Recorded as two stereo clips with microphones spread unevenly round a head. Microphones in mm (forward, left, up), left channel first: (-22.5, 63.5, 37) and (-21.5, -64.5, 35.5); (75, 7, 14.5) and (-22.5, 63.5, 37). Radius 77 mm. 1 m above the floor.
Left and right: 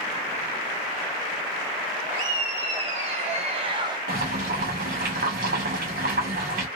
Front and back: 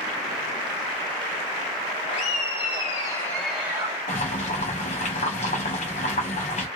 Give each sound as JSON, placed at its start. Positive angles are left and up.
{"t": 2.1, "sound": "laughter", "azimuth_deg": -35, "distance_m": 1.8}
{"t": 4.1, "sound": "boiling", "azimuth_deg": -65, "distance_m": 1.2}